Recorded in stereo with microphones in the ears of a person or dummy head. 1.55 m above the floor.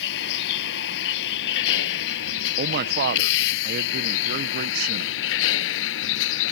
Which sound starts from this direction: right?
A man speaking, at 2.6 s.